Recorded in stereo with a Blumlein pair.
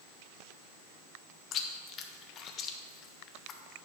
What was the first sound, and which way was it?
Chewing, 30° left.